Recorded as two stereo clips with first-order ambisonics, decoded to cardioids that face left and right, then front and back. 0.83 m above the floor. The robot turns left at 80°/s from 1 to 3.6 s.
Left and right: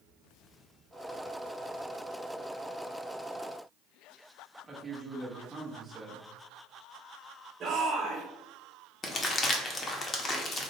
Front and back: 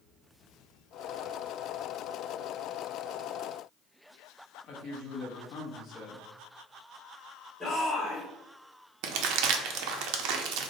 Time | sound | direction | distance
4.6 | a man speaking | 20° right | 0.8 m
7.6 | a shout | 80° right | 1.0 m
9.0 | crumpling | 155° left | 0.6 m